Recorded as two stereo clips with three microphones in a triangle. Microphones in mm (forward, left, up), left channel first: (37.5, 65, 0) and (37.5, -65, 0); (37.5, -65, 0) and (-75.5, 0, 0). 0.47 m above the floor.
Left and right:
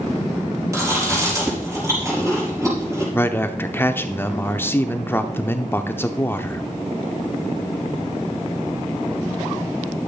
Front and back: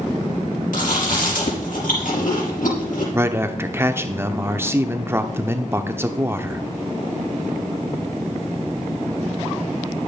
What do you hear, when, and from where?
0.7 s chewing: 25° right, 5 m
3.1 s a man speaking: 125° left, 0.7 m